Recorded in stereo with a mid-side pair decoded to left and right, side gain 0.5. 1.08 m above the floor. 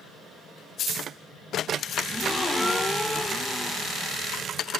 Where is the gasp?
5° left, 1.8 m.